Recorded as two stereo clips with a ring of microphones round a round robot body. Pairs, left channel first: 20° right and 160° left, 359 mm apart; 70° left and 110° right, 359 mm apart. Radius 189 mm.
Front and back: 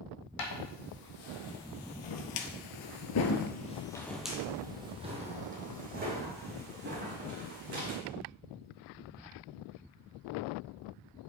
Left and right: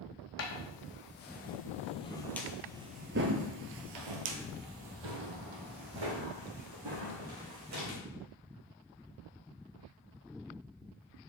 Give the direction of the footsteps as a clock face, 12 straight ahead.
12 o'clock.